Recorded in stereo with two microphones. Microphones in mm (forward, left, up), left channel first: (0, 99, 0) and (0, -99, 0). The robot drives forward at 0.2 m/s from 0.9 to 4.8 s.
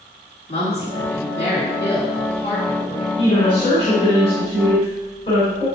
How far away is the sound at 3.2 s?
About 3 m.